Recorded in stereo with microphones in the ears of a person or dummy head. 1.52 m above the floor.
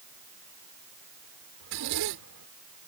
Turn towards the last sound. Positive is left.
turn(degrees=-65)  # may be behind; listen again after turning